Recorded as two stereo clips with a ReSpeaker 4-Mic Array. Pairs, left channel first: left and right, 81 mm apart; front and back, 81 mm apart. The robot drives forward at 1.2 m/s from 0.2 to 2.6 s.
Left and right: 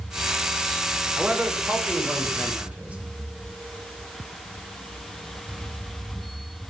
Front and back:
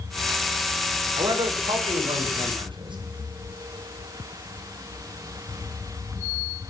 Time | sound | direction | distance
1.1 | a man speaking | 160° right | 5 m